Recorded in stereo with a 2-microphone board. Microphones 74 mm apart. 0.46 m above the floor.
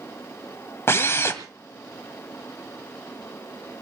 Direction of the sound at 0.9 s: 35° left (ahead or behind).